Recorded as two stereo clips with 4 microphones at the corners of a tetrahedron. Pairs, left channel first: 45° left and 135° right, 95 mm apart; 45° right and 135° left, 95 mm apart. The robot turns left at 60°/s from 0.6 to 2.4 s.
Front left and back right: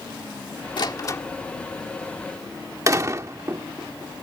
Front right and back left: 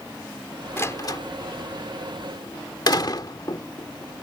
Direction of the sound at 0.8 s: 15° left.